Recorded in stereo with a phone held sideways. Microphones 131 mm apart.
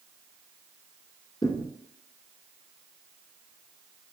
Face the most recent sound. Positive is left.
turn(degrees=25)  # may be behind; listen again after turning